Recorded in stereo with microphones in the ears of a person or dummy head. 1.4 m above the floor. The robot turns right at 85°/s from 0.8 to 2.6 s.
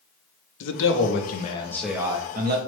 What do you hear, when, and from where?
0.6 s a man speaking: 85° left, 0.6 m; by 2.6 s 120° right, 0.6 m